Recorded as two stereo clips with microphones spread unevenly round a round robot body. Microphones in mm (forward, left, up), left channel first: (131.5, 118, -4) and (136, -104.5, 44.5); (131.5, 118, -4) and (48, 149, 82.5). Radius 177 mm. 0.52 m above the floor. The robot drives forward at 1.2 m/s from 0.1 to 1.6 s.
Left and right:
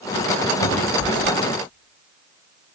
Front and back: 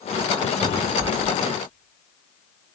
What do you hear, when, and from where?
0.6 s a cupboard door: 135° left, 5 m; by 1.4 s 140° left, 6 m